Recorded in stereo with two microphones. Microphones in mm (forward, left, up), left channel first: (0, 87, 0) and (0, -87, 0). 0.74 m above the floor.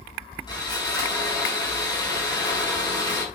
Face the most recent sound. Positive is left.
turn(degrees=25)  # may be behind; listen again after turning